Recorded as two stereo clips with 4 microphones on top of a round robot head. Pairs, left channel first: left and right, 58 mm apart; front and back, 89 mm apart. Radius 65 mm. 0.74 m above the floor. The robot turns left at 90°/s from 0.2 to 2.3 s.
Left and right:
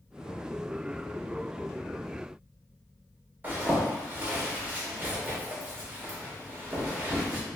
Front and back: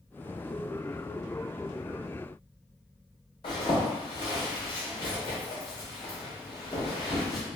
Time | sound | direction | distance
3.4 | a zipper | 40° right | 1.5 m